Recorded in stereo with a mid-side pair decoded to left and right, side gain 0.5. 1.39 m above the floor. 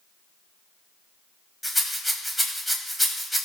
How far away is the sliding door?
No sliding door in this recording.